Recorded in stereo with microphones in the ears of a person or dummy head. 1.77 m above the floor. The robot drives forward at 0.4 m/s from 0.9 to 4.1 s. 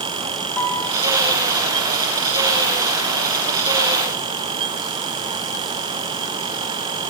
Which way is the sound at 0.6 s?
15° left (ahead or behind).